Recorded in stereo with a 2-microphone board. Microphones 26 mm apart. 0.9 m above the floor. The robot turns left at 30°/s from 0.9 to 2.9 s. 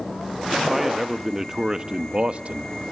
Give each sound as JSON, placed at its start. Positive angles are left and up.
{"t": 0.7, "sound": "a man speaking", "azimuth_deg": -5, "distance_m": 0.9}